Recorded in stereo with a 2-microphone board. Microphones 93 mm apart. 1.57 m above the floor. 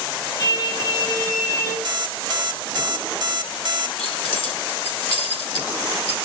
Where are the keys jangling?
85° left, 3.5 m.